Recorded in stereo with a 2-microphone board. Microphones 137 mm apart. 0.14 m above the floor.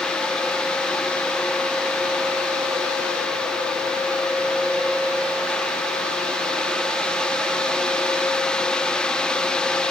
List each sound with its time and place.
Only background noise.